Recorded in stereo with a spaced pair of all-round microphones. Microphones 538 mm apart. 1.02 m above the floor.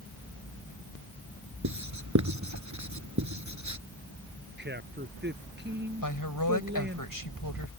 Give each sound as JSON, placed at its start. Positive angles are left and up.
{"t": 1.6, "sound": "writing", "side_deg": -30}
{"t": 4.6, "sound": "a man speaking", "side_deg": -20}
{"t": 6.0, "sound": "a woman speaking", "side_deg": 35}